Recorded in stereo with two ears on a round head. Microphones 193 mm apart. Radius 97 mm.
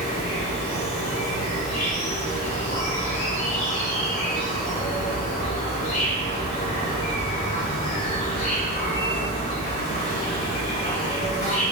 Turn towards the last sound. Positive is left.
turn(degrees=35)  # may be behind; listen again after turning